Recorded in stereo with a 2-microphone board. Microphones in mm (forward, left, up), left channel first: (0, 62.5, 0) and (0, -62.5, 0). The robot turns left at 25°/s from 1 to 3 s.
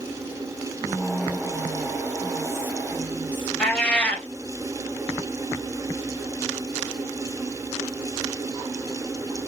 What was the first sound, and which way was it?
Whispering, 90° right.